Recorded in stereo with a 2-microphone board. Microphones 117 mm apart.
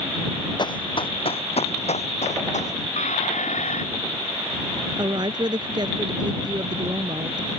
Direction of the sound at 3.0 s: 85° left.